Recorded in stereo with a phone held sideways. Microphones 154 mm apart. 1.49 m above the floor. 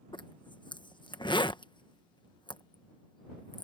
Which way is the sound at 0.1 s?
30° left (ahead or behind).